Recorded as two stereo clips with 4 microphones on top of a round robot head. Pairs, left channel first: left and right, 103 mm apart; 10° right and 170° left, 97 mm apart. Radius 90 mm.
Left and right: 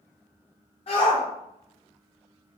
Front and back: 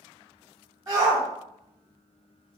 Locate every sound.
0.9 s a shout: 115° left, 1.7 m